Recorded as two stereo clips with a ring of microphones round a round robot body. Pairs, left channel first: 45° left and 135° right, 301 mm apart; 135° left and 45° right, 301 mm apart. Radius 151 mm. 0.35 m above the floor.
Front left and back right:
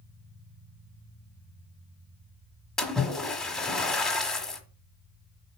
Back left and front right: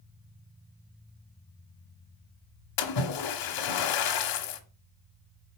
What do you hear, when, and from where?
2.8 s a splash: 135° left, 1.2 m